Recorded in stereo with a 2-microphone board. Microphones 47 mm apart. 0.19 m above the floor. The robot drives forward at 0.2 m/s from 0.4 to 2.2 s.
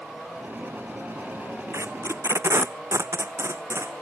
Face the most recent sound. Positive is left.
turn(degrees=-75)  # may be behind; listen again after turning